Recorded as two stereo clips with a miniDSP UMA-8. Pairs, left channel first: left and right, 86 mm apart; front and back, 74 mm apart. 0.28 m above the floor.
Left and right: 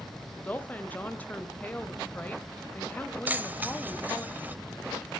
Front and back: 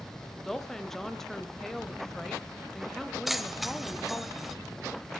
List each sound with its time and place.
0.4 s a woman speaking: 80° left, 0.9 m
3.3 s keys jangling: 100° right, 0.7 m